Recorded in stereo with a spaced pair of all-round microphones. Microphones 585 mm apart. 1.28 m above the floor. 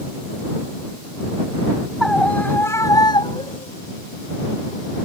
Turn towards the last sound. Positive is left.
turn(degrees=10)  # may be behind; listen again after turning